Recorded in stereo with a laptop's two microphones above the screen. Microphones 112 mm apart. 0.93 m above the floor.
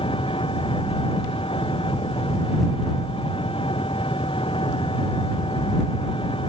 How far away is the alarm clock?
I don't hear an alarm clock.